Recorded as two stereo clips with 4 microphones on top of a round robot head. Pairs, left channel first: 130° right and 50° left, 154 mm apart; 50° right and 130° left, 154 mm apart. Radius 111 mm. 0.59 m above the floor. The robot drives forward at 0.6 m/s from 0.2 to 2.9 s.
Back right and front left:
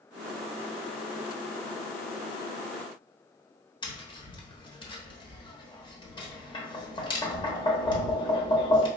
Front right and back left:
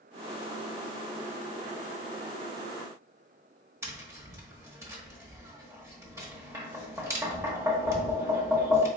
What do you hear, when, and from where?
3.8 s tapping: 170° right, 1.1 m